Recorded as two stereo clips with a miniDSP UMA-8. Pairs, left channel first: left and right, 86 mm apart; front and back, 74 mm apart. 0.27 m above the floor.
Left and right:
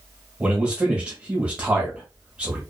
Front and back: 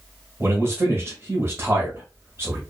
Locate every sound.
0.4 s a man speaking: 155° right, 1.3 m